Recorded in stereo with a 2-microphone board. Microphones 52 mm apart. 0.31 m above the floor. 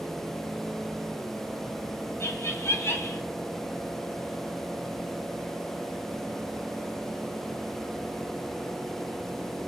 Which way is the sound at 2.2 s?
55° left (ahead or behind).